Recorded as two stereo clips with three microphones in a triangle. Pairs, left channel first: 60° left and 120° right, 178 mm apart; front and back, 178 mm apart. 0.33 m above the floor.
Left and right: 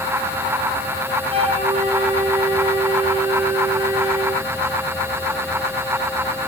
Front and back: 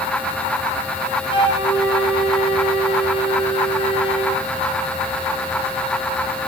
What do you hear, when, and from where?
1.3 s a flute: 60° right, 2.5 m